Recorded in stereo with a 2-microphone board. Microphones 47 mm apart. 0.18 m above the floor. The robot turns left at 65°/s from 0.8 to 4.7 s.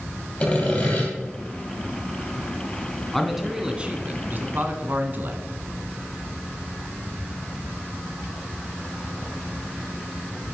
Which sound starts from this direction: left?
Sawing, at 0.4 s.